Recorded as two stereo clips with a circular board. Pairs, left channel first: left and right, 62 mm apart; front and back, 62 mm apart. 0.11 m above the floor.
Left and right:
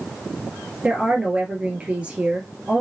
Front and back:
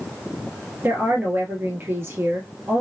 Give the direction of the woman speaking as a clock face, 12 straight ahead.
5 o'clock.